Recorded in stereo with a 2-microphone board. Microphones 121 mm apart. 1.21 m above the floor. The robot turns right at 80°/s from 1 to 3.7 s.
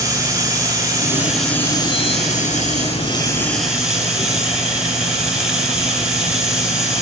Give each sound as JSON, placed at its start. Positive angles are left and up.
{"t": 0.0, "sound": "running water", "azimuth_deg": -30, "distance_m": 9.0}